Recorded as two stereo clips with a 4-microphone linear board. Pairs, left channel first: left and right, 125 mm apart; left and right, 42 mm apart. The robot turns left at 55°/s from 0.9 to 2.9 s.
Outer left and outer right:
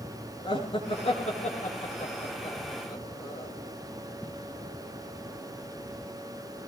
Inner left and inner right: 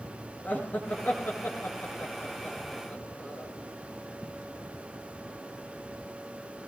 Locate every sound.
0.4 s laughter: 45° left (ahead or behind), 5 m; by 3.5 s 25° left (ahead or behind), 5 m